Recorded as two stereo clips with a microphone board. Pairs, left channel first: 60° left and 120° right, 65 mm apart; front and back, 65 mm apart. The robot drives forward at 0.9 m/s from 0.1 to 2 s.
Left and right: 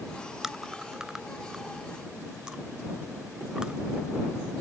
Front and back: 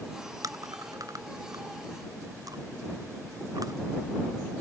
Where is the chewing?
155° left; by 3.7 s 160° left.